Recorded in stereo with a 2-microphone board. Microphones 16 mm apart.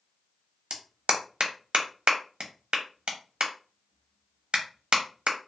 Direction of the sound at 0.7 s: 80° right.